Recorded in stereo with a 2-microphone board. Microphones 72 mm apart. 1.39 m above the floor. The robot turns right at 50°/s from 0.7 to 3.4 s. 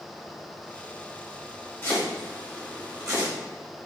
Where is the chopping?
20° left (ahead or behind), 2 m; by 3.3 s 50° right (ahead or behind), 2 m.